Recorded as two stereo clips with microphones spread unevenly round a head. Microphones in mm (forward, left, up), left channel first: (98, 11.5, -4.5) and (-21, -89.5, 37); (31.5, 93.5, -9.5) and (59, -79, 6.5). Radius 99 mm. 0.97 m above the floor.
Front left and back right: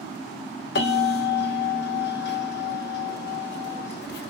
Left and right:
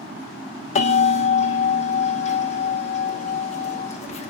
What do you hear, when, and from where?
0.8 s a bell: 50° left, 2 m